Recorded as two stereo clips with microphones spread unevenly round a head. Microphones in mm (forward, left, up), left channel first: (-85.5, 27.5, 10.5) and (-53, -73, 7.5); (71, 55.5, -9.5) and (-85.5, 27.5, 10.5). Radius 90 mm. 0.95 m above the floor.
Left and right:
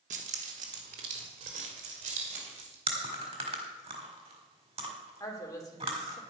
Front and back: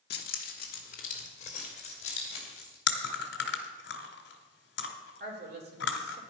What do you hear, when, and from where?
0.1 s keys jangling: 30° right, 1.0 m; by 2.8 s 50° right, 3 m
2.9 s chewing: 20° right, 1.5 m
5.2 s a woman speaking: 165° left, 3.5 m